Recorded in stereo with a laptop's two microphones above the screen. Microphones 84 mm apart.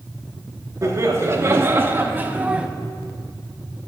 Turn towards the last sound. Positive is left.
turn(degrees=-10)  # may be behind; listen again after turning